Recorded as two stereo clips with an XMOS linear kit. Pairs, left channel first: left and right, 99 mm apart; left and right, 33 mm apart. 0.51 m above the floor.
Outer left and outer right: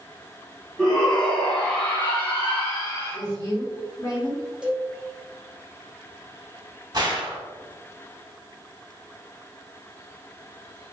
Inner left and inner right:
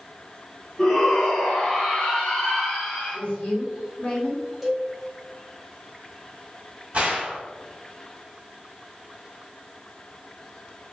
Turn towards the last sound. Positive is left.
turn(degrees=-45)  # may be behind; listen again after turning